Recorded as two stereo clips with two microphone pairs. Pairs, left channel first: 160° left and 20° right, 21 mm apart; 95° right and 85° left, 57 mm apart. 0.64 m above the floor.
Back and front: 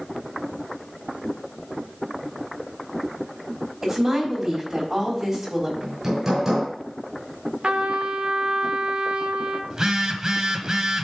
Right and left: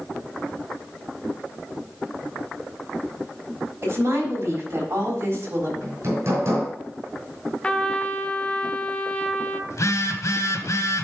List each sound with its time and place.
3.8 s a woman speaking: 40° left, 4 m
5.8 s hammering: 40° left, 4.5 m
7.6 s a trumpet: 25° right, 0.8 m
9.7 s a phone buzzing: 70° right, 1.2 m